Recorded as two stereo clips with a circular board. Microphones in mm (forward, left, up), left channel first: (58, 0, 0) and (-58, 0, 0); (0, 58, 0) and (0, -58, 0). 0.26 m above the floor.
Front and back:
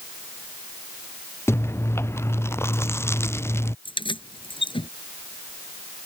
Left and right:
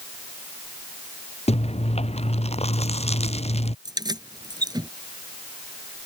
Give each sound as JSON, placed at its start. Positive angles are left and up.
{"t": 1.5, "sound": "chewing", "azimuth_deg": 70}
{"t": 3.9, "sound": "keys jangling", "azimuth_deg": -40}